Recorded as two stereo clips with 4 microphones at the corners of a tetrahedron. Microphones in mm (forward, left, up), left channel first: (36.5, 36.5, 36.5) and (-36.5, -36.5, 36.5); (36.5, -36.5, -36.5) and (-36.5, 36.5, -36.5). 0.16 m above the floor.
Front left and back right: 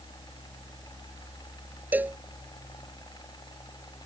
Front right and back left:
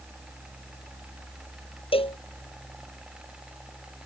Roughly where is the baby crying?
No baby crying in this recording.